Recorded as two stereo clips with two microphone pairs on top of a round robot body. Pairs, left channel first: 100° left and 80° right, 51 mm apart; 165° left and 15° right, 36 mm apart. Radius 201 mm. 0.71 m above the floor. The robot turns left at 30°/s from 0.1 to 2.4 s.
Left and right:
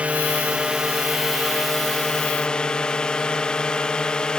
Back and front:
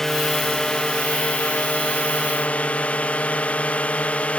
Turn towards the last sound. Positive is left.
turn(degrees=165)